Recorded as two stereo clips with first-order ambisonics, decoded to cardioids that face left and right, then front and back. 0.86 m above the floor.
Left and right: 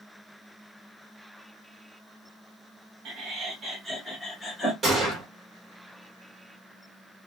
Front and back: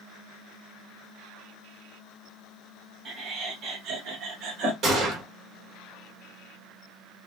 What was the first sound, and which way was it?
Laughter, 125° right.